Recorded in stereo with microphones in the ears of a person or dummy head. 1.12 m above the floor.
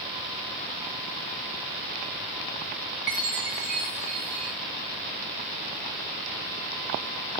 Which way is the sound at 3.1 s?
10° right (ahead or behind).